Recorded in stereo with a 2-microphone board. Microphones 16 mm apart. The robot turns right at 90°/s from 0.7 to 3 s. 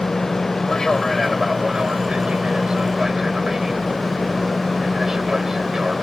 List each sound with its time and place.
0.0 s an aircraft: 45° left (ahead or behind); by 6.0 s 25° right (ahead or behind)